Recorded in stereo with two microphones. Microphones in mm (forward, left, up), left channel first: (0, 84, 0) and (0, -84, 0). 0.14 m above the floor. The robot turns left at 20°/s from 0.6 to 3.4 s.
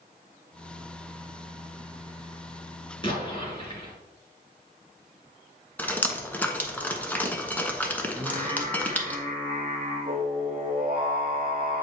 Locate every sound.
3.0 s an explosion: 30° left (ahead or behind), 2.5 m; by 3.9 s 35° left (ahead or behind), 2.5 m
5.8 s dripping: 10° left (ahead or behind), 0.9 m
8.2 s singing: 35° right (ahead or behind), 1.6 m